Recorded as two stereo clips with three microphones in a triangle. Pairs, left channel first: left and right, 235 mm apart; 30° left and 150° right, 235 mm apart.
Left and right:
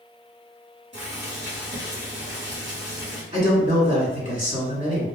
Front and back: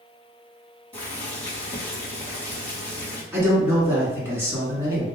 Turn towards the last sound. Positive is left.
turn(degrees=-80)